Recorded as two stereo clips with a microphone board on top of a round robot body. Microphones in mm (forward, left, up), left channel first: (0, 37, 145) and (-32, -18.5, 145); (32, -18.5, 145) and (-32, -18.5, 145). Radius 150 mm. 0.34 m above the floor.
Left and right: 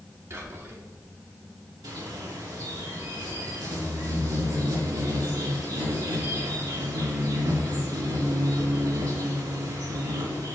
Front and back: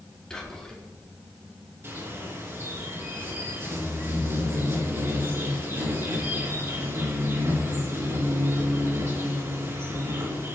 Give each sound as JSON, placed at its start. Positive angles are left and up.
{"t": 0.3, "sound": "whispering", "azimuth_deg": -80, "distance_m": 3.5}
{"t": 1.8, "sound": "a bird", "azimuth_deg": -130, "distance_m": 3.5}